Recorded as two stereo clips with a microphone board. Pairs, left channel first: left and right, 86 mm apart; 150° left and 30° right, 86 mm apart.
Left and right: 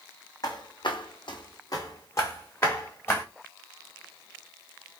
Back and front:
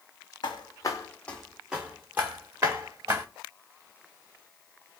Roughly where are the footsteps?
Behind left.